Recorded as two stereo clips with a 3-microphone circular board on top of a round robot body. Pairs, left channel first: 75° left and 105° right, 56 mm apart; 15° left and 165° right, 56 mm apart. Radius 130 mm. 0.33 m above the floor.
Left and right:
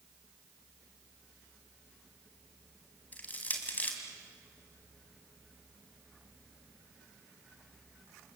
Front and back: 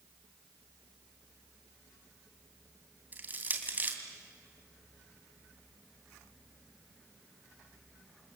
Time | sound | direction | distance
3.1 | crushing | 135° left | 3 m